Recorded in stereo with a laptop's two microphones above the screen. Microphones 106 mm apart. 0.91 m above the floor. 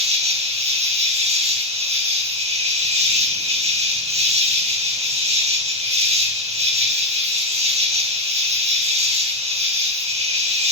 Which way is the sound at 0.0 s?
80° right.